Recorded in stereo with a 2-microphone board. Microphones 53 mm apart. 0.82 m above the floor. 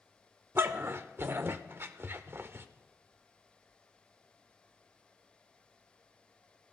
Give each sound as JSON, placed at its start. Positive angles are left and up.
{"t": 0.6, "sound": "a dog barking", "side_deg": -45, "distance_m": 0.6}